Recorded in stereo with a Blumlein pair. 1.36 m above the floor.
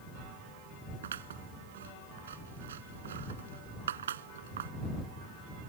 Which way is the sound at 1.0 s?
65° right.